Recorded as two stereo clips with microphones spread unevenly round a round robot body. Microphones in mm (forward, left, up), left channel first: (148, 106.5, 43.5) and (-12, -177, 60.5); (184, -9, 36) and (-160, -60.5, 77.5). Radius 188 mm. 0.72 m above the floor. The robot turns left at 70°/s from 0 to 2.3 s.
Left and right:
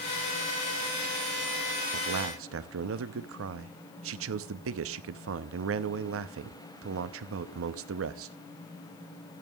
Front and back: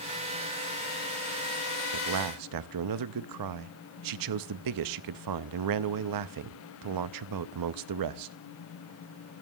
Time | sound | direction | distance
1.9 | a man speaking | 135° right | 0.7 m